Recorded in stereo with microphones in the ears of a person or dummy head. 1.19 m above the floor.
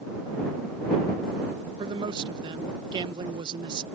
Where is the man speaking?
25° right (ahead or behind).